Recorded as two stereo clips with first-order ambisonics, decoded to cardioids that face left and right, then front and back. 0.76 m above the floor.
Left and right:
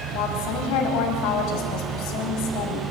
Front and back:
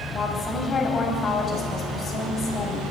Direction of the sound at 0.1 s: 70° left.